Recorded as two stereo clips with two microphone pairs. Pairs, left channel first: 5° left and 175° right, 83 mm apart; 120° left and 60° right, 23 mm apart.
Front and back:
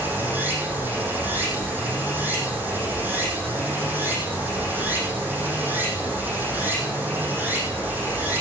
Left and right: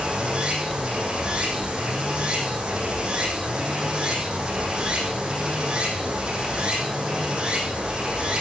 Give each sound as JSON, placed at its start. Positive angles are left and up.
{"t": 0.0, "sound": "running water", "azimuth_deg": -110, "distance_m": 4.5}